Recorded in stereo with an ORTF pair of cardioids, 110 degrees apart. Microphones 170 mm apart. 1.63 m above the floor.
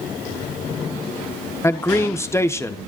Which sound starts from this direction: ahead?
A man speaking, at 1.6 s.